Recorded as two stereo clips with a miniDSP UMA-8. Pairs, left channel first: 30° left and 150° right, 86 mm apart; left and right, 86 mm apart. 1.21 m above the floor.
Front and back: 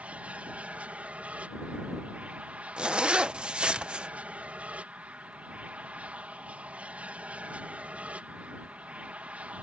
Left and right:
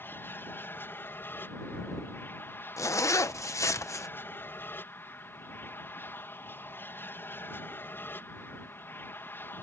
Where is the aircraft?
145° left.